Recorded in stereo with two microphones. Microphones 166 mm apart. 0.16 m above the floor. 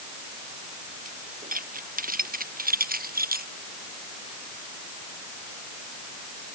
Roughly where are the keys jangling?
Right.